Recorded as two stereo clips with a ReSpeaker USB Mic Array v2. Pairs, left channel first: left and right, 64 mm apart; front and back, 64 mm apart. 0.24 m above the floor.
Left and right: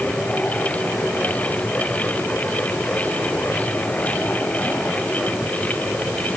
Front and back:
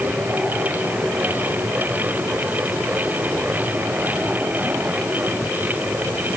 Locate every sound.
Only background noise.